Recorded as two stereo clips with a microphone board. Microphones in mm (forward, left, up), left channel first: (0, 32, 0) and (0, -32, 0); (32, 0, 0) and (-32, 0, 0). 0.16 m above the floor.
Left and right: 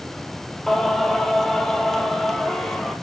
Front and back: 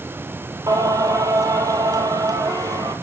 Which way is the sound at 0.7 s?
175° left.